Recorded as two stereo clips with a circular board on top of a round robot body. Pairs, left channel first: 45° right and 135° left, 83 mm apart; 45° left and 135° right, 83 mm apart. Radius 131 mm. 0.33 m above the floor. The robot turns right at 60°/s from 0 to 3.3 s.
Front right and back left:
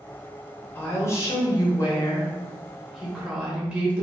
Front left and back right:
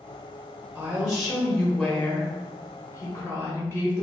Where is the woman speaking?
80° right, 1.1 m; by 4.0 s 70° left, 1.1 m.